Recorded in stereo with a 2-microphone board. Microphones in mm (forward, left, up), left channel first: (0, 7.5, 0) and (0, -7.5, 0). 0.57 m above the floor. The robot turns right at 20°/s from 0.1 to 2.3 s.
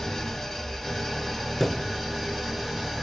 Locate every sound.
0.0 s an engine running: 165° left, 1.1 m; by 3.0 s 150° right, 1.1 m
1.6 s a thud: 15° left (ahead or behind), 0.7 m; by 1.9 s 20° left (ahead or behind), 0.7 m